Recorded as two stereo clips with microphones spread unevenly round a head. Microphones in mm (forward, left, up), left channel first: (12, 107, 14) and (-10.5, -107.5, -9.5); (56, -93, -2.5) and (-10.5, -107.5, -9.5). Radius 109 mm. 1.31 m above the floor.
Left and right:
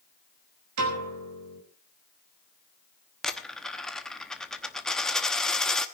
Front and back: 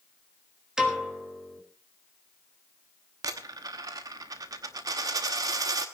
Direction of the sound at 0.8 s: 85° right.